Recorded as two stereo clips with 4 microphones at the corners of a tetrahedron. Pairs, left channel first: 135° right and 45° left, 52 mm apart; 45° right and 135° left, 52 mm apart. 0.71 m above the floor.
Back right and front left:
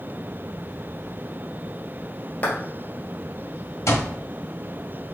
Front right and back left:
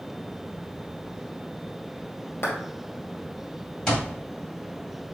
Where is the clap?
85° right, 2 m.